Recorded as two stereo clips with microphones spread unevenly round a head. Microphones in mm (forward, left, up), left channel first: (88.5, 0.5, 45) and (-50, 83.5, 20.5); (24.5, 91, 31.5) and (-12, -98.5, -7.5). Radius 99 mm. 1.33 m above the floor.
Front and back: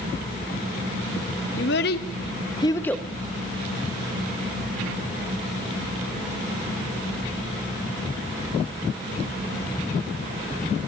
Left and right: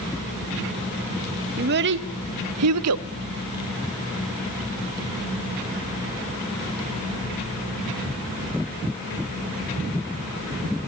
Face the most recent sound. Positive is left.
turn(degrees=-115)